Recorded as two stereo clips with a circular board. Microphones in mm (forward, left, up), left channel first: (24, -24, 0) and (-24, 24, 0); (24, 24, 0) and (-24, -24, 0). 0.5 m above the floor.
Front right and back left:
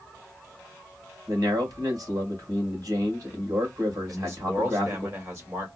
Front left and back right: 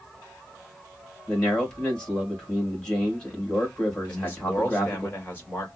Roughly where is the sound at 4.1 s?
Left.